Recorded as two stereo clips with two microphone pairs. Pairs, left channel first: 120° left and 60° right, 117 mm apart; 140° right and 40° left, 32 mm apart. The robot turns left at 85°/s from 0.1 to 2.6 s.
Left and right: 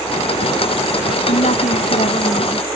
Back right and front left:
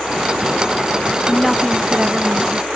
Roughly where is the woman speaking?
Behind left.